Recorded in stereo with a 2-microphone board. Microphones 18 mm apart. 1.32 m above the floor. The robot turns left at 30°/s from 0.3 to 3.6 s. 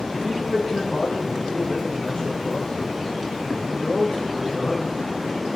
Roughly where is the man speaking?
Behind.